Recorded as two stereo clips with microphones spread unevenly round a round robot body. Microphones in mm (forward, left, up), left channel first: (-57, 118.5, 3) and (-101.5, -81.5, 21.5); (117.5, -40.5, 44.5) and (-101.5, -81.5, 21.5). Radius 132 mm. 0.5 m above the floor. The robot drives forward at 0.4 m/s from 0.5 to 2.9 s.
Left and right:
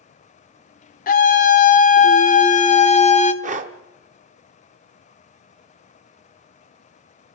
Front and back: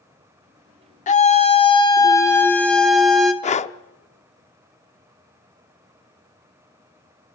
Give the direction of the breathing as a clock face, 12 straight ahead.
2 o'clock.